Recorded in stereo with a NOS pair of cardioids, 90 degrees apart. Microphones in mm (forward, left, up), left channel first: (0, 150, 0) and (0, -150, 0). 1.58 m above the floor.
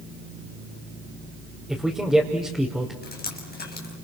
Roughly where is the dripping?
Ahead left.